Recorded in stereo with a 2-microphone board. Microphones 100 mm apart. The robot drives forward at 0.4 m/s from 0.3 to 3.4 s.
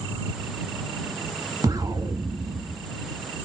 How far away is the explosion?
About 1.5 m.